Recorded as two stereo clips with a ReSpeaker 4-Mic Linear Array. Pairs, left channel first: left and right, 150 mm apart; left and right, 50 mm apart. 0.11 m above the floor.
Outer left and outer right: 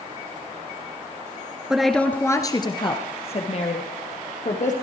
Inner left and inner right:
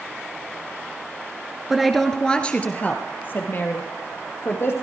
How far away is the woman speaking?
About 1.2 m.